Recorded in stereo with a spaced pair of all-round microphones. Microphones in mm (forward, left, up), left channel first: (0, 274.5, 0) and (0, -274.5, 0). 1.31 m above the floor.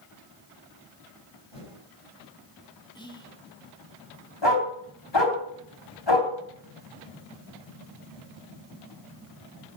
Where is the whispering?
10° left (ahead or behind), 1.8 m.